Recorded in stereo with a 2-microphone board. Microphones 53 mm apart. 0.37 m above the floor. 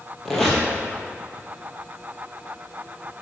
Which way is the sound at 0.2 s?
5° left (ahead or behind).